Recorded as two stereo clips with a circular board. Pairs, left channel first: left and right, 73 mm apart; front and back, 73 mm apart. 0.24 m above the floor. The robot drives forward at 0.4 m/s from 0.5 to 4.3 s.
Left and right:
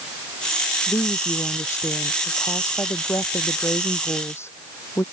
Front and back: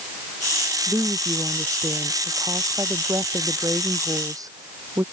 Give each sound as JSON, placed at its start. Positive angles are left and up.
{"t": 0.9, "sound": "a woman speaking", "azimuth_deg": 140}